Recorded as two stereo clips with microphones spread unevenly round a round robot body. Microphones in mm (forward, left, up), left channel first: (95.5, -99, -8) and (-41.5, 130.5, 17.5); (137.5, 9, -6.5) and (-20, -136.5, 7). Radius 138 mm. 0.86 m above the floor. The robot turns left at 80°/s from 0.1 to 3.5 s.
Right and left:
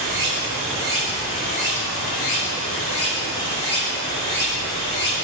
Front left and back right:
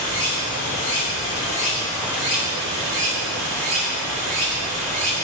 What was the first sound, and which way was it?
Running water, 105° left.